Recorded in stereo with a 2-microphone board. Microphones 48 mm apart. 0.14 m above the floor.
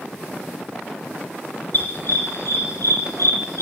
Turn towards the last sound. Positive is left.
turn(degrees=70)  # may be behind; listen again after turning